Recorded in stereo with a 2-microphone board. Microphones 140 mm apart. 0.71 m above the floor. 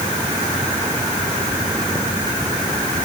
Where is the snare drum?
No snare drum in this recording.